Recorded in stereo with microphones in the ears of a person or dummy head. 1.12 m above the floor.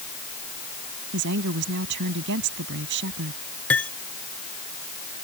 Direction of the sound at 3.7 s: 10° left (ahead or behind).